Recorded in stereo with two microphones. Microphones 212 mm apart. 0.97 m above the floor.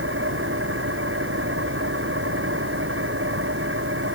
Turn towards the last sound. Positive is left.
turn(degrees=-75)  # may be behind; listen again after turning